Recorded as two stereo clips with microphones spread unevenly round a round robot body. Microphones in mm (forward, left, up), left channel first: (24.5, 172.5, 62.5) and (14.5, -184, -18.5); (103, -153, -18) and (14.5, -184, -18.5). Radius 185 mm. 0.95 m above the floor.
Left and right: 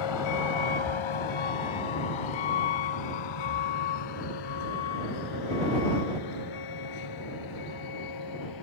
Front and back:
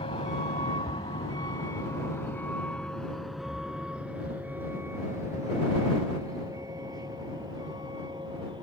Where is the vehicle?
70° left; by 8.6 s 125° left.